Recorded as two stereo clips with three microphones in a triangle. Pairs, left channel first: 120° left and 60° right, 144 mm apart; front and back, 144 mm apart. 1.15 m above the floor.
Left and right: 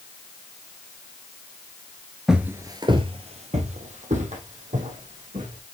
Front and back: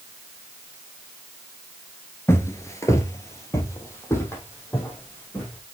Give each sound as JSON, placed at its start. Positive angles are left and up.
{"t": 2.3, "sound": "footsteps", "azimuth_deg": 20, "distance_m": 1.1}